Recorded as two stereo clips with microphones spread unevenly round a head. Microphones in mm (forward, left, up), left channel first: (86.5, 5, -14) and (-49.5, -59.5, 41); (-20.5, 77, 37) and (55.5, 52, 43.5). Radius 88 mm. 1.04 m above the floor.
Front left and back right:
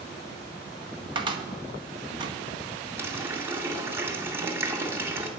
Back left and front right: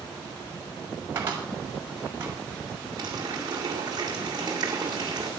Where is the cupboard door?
90° right, 1.9 m.